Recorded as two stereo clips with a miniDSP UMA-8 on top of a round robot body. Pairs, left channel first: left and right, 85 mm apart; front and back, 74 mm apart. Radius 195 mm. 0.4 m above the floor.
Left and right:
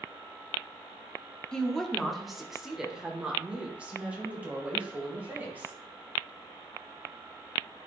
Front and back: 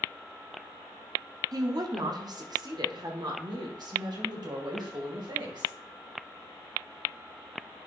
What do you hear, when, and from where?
1.5 s a woman speaking: 170° left, 1.4 m; by 5.7 s 160° right, 3 m